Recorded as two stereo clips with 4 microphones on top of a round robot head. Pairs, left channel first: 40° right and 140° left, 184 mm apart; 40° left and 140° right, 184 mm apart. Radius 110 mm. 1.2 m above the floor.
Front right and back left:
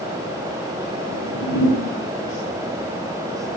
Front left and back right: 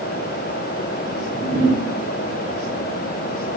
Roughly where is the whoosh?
Ahead right.